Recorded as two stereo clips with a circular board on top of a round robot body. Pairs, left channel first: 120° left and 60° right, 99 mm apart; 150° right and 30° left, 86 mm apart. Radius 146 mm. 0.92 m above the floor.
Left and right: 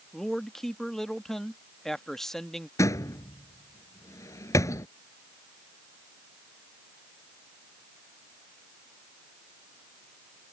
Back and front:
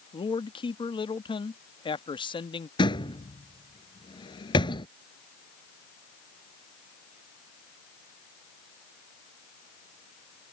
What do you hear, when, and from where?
0.1 s a man speaking: 155° right
2.8 s a door slam: straight behind